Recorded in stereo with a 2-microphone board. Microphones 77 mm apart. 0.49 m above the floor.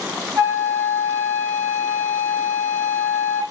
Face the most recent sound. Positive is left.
turn(degrees=-45)  # may be behind; listen again after turning